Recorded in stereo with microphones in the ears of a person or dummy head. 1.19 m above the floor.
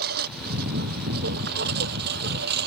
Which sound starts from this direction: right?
A lawn mower, at 0.0 s.